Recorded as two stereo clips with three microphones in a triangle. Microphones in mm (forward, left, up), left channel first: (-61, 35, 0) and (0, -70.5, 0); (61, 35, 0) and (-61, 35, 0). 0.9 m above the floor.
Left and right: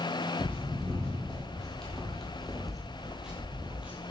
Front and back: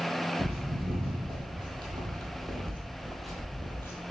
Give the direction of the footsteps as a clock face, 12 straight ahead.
5 o'clock.